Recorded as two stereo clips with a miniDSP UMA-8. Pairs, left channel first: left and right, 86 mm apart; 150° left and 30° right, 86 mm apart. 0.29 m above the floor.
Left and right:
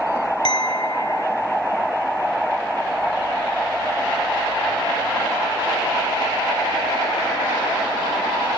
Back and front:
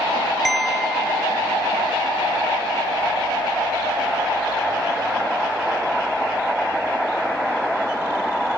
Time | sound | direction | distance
0.5 | a clink | 60° left | ?